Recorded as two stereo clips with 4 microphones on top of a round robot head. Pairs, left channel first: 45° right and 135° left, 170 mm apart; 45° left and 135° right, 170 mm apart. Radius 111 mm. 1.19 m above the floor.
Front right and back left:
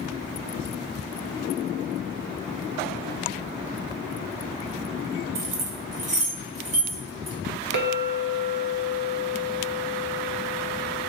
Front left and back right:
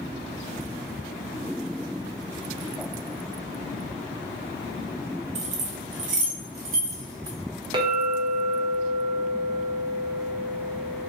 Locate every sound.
5.3 s keys jangling: 175° left, 0.7 m; by 7.4 s 170° right, 1.7 m
7.7 s a clink: 160° left, 0.7 m